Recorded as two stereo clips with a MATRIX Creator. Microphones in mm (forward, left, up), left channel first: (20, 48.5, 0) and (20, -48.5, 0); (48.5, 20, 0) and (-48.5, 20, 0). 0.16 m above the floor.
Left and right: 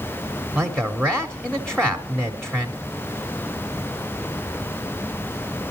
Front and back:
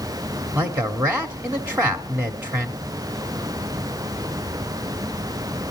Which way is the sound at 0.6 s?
160° left.